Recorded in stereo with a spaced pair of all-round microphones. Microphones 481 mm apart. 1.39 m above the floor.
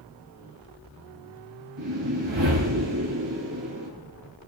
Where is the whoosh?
70° right (ahead or behind), 4 m.